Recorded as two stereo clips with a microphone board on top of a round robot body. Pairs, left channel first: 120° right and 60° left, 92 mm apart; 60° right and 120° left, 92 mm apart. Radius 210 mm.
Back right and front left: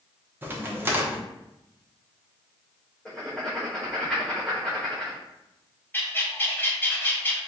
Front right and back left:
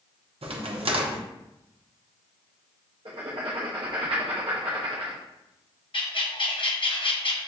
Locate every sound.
0.4 s a crack: 130° left, 0.8 m
3.0 s writing: 150° left, 0.8 m
5.9 s a bird: 55° right, 0.9 m